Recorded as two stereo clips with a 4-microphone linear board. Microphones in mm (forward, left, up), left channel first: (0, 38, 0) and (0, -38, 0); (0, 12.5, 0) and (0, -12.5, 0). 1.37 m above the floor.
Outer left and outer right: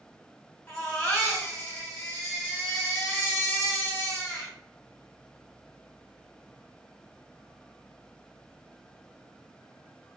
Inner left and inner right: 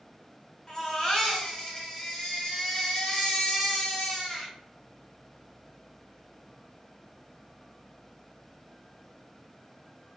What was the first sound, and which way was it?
A baby crying, 25° left (ahead or behind).